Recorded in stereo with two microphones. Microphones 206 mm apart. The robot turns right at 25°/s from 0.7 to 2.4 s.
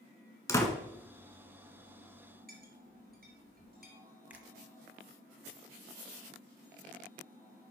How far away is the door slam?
About 1.3 m.